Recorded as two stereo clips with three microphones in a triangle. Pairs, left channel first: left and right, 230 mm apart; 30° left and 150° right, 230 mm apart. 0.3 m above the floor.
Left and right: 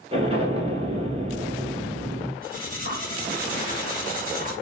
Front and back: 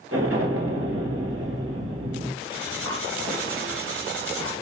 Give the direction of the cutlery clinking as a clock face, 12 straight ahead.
5 o'clock.